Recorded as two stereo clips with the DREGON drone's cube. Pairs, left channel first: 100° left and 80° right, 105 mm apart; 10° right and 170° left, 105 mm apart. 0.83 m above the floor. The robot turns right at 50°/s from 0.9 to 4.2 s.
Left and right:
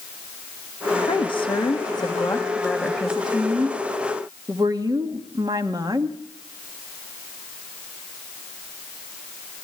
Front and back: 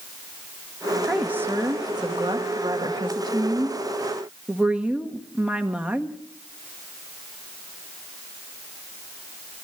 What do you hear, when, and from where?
1.1 s a woman speaking: 90° left, 1.4 m; by 6.2 s 115° right, 1.4 m